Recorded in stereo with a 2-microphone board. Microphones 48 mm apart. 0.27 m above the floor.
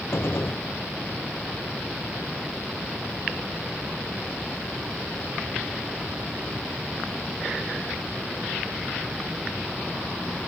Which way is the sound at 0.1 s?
60° left (ahead or behind).